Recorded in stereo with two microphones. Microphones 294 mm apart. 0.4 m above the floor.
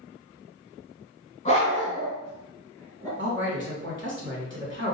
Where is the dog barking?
25° left (ahead or behind), 1.0 m; by 3.1 s 10° left (ahead or behind), 1.9 m.